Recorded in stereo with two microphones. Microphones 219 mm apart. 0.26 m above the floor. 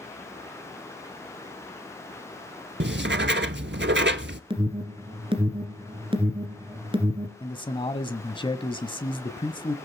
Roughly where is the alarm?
Right.